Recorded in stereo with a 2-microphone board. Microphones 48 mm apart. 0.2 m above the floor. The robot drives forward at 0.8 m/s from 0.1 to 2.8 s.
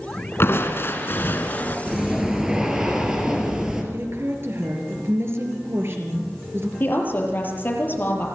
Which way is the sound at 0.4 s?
55° left (ahead or behind).